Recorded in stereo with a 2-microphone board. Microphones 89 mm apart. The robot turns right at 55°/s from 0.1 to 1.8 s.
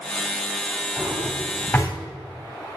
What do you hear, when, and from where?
1.0 s a drawer: 30° right (ahead or behind), 2.5 m; by 1.9 s 15° left (ahead or behind), 2.5 m